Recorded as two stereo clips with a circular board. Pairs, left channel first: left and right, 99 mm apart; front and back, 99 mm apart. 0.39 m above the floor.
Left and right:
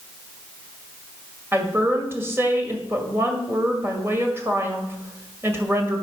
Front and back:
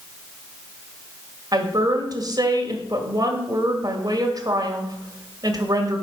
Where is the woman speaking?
150° right, 1.9 m.